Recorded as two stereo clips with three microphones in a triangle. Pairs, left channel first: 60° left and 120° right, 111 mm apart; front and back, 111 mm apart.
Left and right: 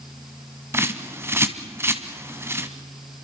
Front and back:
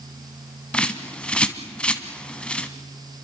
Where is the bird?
75° right, 1.7 m.